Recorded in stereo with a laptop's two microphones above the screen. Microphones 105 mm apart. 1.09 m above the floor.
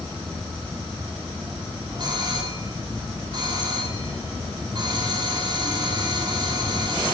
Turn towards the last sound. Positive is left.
turn(degrees=-45)  # may be behind; listen again after turning